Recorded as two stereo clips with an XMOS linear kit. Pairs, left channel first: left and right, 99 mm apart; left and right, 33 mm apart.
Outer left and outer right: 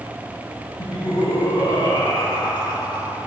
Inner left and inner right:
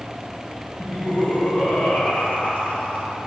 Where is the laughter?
50° left (ahead or behind), 3 m; by 3.2 s 55° left (ahead or behind), 4.5 m.